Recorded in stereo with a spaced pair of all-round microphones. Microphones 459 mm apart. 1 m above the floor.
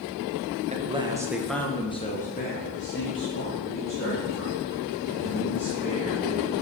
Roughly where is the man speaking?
Centre.